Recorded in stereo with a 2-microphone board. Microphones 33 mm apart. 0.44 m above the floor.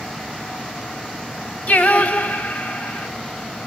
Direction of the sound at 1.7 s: 60° left (ahead or behind).